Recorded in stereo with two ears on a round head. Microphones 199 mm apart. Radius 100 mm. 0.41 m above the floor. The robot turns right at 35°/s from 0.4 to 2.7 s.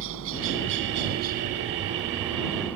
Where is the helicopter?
75° right; by 2.8 s 5° left.